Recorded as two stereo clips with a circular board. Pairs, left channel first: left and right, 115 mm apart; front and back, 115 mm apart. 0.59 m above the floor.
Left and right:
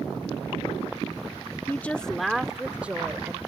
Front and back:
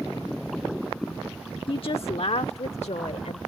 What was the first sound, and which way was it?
A woman speaking, 25° left.